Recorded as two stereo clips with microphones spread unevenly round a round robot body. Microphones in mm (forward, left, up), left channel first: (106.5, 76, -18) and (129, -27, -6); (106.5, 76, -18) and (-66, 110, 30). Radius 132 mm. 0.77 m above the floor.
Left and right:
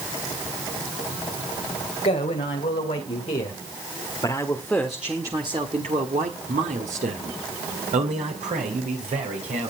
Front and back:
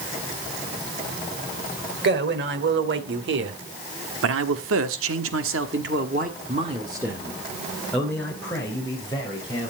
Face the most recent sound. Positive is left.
turn(degrees=-80)